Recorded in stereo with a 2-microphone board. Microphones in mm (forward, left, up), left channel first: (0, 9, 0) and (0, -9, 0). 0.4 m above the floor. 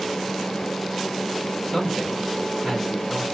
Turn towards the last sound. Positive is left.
turn(degrees=10)  # may be behind; listen again after turning